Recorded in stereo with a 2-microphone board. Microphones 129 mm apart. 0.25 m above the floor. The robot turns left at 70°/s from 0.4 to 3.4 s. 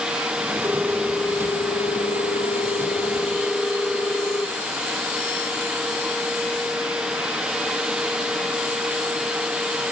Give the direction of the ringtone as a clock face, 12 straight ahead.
5 o'clock.